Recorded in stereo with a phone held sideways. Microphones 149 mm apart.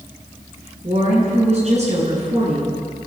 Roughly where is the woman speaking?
Right.